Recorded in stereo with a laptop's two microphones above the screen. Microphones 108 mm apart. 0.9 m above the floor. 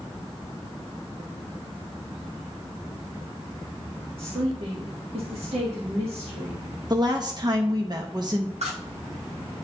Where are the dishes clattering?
85° right, 1.3 m.